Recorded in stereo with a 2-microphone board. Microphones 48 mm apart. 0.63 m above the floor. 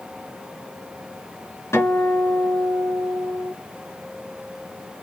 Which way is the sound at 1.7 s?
70° left (ahead or behind).